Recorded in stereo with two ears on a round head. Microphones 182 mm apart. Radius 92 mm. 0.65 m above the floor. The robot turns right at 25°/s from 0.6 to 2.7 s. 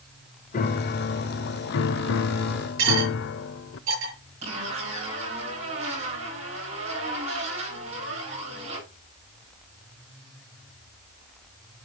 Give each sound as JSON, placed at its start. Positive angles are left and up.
{"t": 0.5, "sound": "a piano", "azimuth_deg": 45, "distance_m": 0.6}
{"t": 2.8, "sound": "cutlery clinking", "side_deg": -75, "distance_m": 6.0}
{"t": 4.4, "sound": "a zipper", "side_deg": -35, "distance_m": 8.0}